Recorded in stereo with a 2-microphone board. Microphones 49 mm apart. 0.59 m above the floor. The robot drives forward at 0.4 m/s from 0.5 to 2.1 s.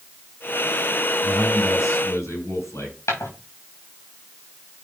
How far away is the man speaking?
About 6 m.